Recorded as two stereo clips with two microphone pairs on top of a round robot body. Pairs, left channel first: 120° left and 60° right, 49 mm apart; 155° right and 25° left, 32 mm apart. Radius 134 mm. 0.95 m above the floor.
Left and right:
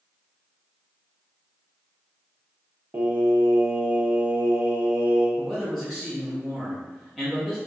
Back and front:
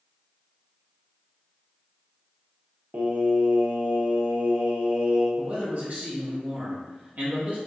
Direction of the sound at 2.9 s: 15° right.